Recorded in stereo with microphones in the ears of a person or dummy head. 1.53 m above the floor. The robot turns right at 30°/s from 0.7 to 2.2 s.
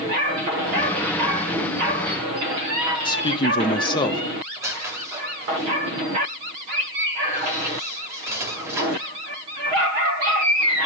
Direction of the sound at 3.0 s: 25° left (ahead or behind).